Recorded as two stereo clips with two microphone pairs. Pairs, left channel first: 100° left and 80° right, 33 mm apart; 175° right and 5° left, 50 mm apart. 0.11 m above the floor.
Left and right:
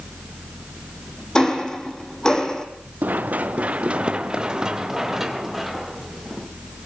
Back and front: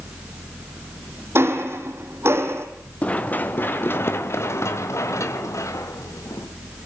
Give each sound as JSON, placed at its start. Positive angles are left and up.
{"t": 1.4, "sound": "ticking", "azimuth_deg": 35, "distance_m": 3.0}
{"t": 3.0, "sound": "running footsteps", "azimuth_deg": -115, "distance_m": 2.5}